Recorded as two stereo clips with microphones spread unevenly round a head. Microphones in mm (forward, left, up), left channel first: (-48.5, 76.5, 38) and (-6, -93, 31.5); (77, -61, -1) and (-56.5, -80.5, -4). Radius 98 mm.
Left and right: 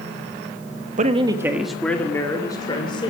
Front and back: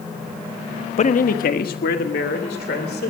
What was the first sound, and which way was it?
A man speaking, 25° right.